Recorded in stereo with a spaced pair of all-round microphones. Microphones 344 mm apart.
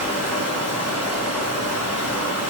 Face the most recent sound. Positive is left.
turn(degrees=-50)  # may be behind; listen again after turning